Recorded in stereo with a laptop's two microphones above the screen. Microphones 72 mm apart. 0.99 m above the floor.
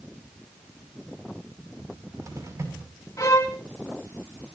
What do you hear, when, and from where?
1.8 s a cupboard door: 45° right (ahead or behind), 6.5 m
3.2 s a violin: 45° left (ahead or behind), 4 m